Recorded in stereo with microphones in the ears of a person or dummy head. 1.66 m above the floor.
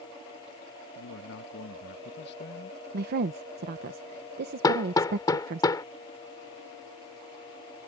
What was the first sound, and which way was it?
A man speaking, 75° left (ahead or behind).